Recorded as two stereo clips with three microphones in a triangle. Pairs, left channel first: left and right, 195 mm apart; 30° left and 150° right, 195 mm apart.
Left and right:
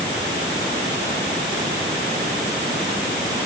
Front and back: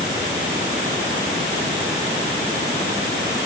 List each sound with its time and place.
Only background noise.